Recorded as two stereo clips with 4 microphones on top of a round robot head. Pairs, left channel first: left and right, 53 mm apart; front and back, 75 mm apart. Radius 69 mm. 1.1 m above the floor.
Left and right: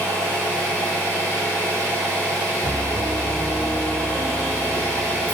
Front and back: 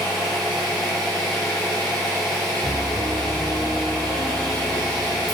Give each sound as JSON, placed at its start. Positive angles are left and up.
{"t": 0.0, "sound": "an engine running", "azimuth_deg": 90, "distance_m": 1.0}
{"t": 2.6, "sound": "a piano", "azimuth_deg": -25, "distance_m": 1.2}